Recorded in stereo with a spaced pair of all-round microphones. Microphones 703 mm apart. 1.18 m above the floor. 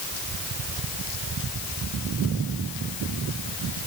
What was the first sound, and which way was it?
Only background noise.